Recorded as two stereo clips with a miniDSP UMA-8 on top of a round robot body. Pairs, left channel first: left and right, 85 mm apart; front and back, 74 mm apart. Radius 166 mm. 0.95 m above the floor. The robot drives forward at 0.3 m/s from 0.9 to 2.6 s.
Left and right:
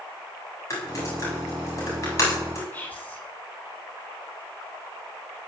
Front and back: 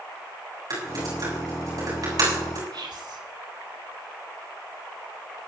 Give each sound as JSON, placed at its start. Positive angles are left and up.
{"t": 0.7, "sound": "typing on a keyboard", "azimuth_deg": 145, "distance_m": 7.5}
{"t": 2.7, "sound": "whispering", "azimuth_deg": 165, "distance_m": 3.5}